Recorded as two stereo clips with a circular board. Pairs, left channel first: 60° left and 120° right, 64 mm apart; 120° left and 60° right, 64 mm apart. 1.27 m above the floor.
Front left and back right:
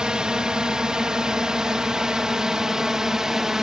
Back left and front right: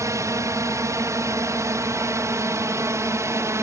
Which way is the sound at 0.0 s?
45° right.